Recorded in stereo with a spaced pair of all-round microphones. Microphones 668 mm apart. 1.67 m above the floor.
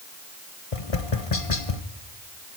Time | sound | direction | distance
0.7 | tapping | 50° left (ahead or behind) | 1.2 m